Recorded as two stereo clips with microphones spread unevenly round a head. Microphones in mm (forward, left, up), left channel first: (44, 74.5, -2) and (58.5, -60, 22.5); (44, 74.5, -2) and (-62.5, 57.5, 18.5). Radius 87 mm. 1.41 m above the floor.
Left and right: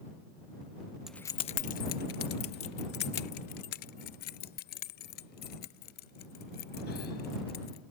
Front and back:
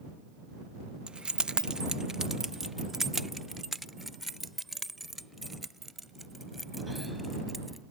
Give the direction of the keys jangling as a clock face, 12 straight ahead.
5 o'clock.